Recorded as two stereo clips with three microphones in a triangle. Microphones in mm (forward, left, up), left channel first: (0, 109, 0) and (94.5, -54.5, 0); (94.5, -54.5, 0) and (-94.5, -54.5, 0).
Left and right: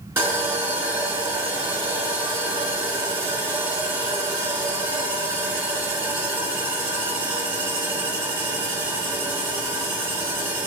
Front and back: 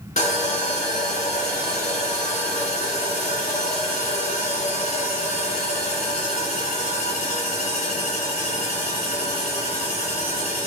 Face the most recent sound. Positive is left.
turn(degrees=10)